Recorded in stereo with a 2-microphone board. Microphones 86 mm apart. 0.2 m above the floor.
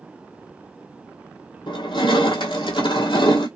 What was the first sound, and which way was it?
Crushing, 85° left.